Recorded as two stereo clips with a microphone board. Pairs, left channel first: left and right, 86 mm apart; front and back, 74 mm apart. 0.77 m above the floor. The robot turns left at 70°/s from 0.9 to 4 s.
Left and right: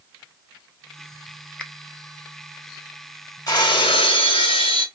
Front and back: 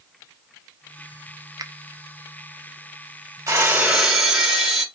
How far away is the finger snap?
About 0.6 m.